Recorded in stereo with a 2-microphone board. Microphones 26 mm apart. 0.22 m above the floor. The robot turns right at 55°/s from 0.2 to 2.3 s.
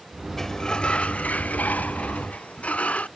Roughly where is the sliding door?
Ahead.